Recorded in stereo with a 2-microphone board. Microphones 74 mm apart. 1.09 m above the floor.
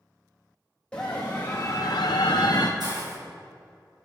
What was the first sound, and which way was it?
A scream, 15° left (ahead or behind).